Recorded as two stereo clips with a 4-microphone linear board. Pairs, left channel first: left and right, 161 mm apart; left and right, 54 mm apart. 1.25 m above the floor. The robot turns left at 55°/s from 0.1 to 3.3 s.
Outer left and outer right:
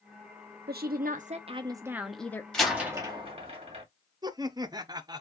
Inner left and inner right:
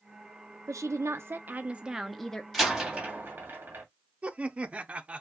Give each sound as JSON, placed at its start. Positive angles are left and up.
{"t": 0.7, "sound": "a woman speaking", "azimuth_deg": -100, "distance_m": 0.5}
{"t": 2.5, "sound": "a door slam", "side_deg": 5, "distance_m": 2.0}
{"t": 4.2, "sound": "laughter", "side_deg": -25, "distance_m": 0.5}